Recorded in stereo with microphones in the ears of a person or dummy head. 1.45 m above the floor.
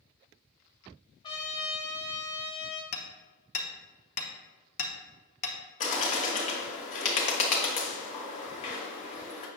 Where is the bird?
40° left (ahead or behind), 1.6 m.